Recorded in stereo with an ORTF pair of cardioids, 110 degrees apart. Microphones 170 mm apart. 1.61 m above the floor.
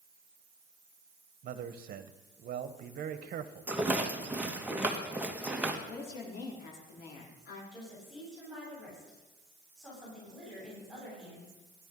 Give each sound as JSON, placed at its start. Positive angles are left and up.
{"t": 1.4, "sound": "a man speaking", "azimuth_deg": -60, "distance_m": 1.3}
{"t": 3.7, "sound": "a rattle", "azimuth_deg": -10, "distance_m": 1.8}
{"t": 5.9, "sound": "a woman speaking", "azimuth_deg": 65, "distance_m": 4.5}
{"t": 7.7, "sound": "a woman speaking", "azimuth_deg": 0, "distance_m": 9.0}